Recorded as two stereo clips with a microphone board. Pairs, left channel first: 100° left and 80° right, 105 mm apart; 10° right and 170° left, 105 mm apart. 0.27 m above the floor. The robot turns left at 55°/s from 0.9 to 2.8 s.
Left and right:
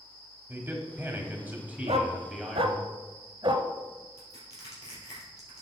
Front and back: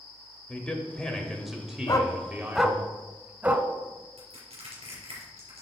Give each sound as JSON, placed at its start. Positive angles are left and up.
{"t": 0.5, "sound": "a man speaking", "azimuth_deg": -75, "distance_m": 1.1}
{"t": 1.9, "sound": "a dog barking", "azimuth_deg": -65, "distance_m": 0.7}
{"t": 4.2, "sound": "crushing", "azimuth_deg": 155, "distance_m": 3.5}